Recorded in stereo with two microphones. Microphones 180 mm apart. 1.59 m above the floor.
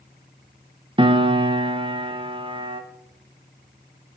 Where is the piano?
30° right (ahead or behind), 0.8 m.